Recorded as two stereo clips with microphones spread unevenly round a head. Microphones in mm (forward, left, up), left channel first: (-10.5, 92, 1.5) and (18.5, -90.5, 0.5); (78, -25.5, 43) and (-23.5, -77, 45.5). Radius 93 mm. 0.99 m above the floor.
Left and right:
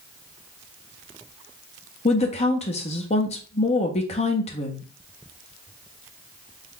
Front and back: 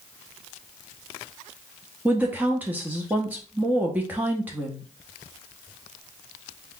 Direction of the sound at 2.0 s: 135° left.